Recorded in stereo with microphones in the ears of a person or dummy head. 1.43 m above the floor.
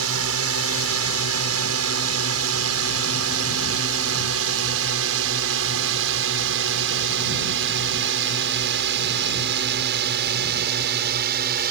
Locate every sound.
0.0 s a drone: 70° right (ahead or behind); by 11.7 s 55° right (ahead or behind)